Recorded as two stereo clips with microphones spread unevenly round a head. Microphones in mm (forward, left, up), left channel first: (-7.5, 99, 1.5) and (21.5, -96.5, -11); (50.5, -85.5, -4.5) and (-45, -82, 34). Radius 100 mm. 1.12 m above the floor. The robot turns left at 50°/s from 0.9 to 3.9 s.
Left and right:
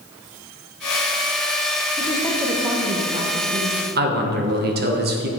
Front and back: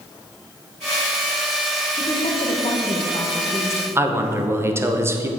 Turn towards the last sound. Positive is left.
turn(degrees=-105)